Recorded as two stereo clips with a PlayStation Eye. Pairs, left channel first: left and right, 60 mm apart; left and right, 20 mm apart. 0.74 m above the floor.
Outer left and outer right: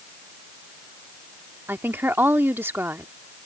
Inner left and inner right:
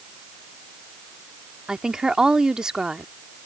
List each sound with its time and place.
1.7 s a woman speaking: 35° right (ahead or behind)